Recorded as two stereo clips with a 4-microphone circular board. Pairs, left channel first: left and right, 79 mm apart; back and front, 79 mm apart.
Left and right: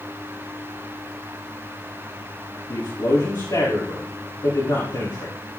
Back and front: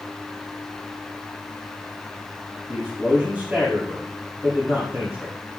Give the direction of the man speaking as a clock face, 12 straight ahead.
10 o'clock.